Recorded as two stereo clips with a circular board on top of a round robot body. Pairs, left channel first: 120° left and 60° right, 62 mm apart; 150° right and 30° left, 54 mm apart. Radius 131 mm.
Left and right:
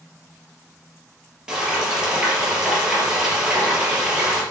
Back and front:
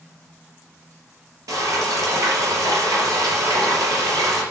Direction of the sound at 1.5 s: 20° left.